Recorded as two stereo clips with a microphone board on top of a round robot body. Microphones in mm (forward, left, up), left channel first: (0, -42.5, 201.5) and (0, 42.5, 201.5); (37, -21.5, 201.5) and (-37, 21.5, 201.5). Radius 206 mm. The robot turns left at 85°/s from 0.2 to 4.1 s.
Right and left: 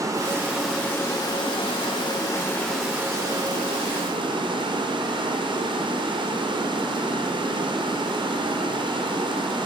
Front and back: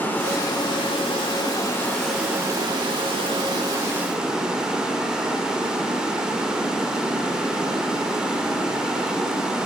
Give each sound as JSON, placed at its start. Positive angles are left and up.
{"t": 0.0, "sound": "running water", "azimuth_deg": 40, "distance_m": 1.3}